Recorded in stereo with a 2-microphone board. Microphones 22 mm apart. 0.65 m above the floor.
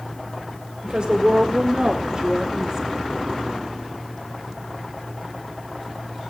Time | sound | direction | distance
0.8 | a woman speaking | 45° right (ahead or behind) | 2.5 m